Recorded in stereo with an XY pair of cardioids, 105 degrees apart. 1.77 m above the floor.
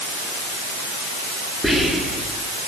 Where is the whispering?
10° left, 3 m.